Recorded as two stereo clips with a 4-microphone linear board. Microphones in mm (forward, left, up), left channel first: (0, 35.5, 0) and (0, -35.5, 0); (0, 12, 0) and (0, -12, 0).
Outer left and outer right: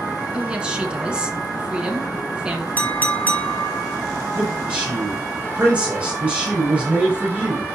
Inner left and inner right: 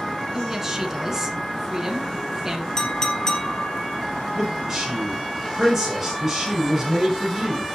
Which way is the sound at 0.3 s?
15° right (ahead or behind).